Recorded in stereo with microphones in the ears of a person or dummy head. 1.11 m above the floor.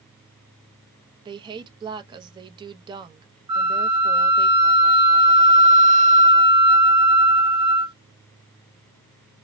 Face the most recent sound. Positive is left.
turn(degrees=-25)  # may be behind; listen again after turning